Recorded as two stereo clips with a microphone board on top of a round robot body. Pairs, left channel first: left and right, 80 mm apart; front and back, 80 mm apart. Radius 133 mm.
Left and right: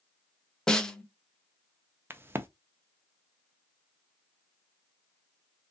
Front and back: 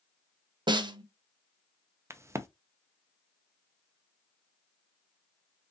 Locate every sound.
0.7 s a snare drum: 170° left, 0.8 m
2.1 s a crack: 140° right, 0.7 m